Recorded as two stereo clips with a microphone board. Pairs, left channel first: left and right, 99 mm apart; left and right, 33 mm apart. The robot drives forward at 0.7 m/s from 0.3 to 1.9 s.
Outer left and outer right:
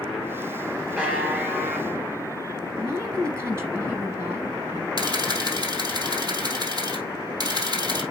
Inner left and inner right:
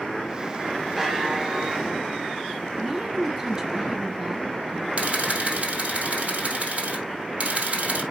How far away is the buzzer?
About 2 m.